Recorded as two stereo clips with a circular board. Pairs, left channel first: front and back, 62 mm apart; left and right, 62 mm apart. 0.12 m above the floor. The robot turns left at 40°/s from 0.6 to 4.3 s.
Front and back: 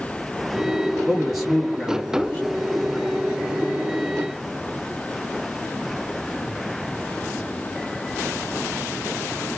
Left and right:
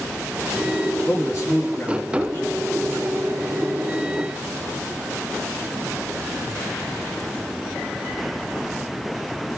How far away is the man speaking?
About 2 m.